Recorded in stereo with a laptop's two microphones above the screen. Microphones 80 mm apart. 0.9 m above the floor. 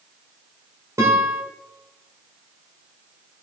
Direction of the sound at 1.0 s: 35° right (ahead or behind).